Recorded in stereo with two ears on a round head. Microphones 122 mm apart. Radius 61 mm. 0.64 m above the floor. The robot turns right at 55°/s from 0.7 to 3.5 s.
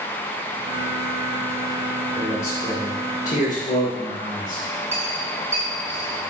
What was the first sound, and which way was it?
A man speaking, 5° left.